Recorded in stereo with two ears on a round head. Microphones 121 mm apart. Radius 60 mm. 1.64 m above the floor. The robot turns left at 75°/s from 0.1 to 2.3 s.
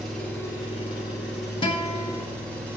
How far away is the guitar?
About 1.1 m.